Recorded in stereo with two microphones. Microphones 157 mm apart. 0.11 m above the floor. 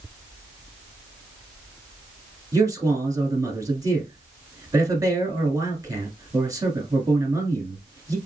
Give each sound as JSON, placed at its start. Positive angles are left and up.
{"t": 2.5, "sound": "a man speaking", "side_deg": -20, "distance_m": 1.2}